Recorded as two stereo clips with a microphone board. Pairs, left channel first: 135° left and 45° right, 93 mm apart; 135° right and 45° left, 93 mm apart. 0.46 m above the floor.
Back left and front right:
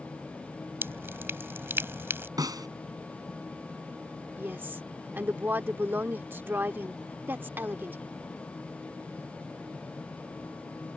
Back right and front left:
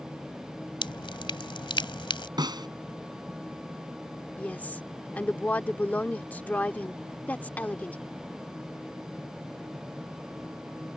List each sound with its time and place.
0.8 s dripping: 110° right
2.4 s a snare drum: 5° left
4.4 s a woman speaking: 85° right